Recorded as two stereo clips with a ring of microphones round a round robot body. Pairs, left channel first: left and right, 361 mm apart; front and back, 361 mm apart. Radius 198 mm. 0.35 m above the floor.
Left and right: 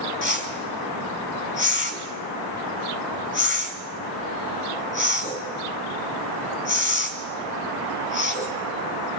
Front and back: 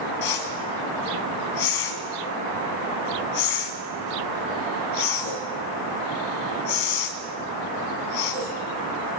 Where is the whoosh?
30° left, 2.5 m.